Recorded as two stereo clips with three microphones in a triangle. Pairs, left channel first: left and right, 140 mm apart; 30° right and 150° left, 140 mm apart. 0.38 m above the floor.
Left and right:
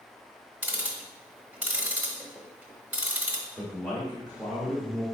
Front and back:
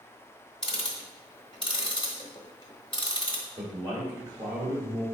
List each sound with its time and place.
0.6 s ticking: 20° right, 0.8 m
3.6 s a man speaking: 160° left, 1.6 m